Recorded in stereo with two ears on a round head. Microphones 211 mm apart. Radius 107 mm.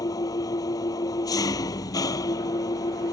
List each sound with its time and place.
0.0 s an engine running: 15° left (ahead or behind)